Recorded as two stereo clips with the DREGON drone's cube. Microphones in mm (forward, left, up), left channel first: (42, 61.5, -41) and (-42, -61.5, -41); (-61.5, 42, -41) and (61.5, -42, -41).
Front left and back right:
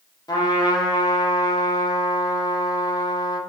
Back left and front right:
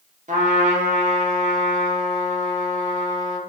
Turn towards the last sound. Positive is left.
turn(degrees=-5)